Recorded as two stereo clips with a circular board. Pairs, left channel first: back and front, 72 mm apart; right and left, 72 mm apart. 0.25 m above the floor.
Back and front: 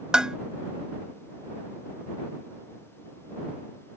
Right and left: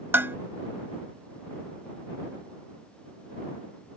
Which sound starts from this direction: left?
Dishes clattering, at 0.1 s.